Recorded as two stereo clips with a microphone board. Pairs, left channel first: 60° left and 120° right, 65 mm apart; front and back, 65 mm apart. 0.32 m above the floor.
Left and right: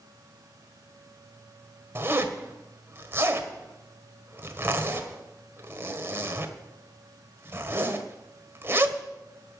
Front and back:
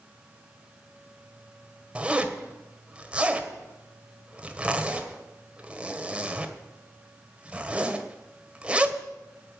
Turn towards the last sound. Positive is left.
turn(degrees=-120)